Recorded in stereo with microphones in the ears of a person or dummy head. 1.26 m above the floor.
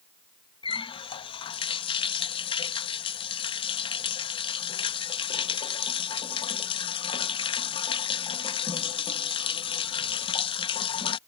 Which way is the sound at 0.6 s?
25° left (ahead or behind).